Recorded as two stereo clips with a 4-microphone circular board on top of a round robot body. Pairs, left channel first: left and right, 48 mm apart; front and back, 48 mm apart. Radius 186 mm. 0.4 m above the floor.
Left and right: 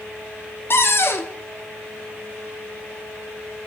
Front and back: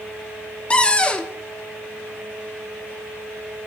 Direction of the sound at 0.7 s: 65° left.